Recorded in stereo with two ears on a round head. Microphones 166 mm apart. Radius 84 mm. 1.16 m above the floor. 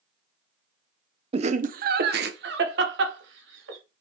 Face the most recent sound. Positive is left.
turn(degrees=-70)  # may be behind; listen again after turning